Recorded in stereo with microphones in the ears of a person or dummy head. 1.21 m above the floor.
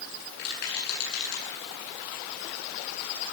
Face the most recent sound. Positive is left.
turn(degrees=55)  # may be behind; listen again after turning